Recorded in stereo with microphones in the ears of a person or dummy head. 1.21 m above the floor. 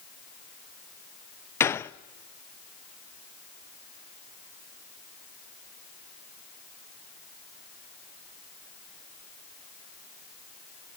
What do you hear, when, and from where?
1.6 s a gunshot: 15° left (ahead or behind), 0.5 m